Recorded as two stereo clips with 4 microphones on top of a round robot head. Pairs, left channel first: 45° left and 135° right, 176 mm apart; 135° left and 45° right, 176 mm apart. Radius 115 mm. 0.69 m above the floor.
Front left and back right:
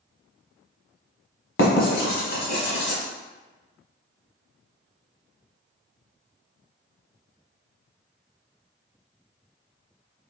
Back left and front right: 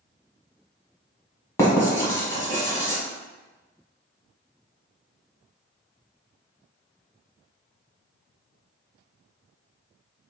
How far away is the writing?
About 1.1 m.